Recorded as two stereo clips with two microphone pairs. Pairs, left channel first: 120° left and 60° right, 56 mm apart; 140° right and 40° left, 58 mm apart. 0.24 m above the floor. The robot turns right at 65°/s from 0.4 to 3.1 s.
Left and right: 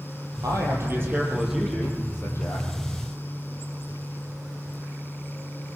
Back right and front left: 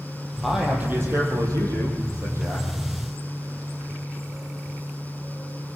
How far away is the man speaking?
About 6.5 m.